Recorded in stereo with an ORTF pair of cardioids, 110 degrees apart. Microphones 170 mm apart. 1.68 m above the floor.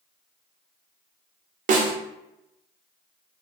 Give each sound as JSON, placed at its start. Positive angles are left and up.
{"t": 1.7, "sound": "a snare drum", "azimuth_deg": -50, "distance_m": 0.6}